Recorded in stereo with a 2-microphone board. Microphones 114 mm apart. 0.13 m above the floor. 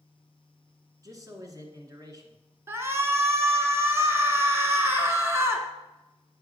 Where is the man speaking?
30° right (ahead or behind), 1.5 m.